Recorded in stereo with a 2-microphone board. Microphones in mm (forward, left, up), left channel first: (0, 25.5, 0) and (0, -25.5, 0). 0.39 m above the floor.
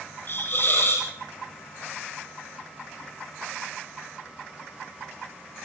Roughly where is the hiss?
Left.